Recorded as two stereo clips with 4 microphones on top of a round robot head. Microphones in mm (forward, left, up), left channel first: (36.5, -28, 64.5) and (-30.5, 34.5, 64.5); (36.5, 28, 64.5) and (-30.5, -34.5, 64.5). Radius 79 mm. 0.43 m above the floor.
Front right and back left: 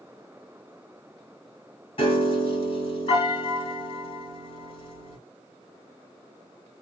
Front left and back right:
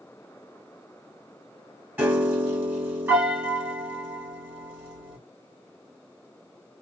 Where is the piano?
65° right, 1.8 m.